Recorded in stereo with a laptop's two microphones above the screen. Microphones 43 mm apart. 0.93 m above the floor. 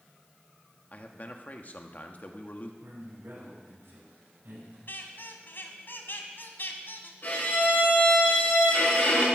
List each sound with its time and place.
0.9 s a man speaking: 45° left (ahead or behind), 1.4 m
2.8 s a man speaking: 80° right, 6 m
4.9 s a squeak: 60° left (ahead or behind), 1.4 m
7.2 s a violin: 50° left (ahead or behind), 6 m